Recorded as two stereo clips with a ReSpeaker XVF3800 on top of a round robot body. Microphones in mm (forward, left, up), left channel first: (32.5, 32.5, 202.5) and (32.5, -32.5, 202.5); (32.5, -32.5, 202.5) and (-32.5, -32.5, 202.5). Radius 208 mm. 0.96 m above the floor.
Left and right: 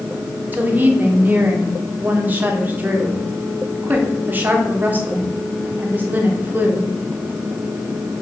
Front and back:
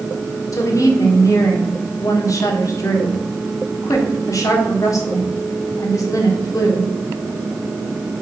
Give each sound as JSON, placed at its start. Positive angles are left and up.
{"t": 0.5, "sound": "a woman speaking", "azimuth_deg": -30, "distance_m": 1.8}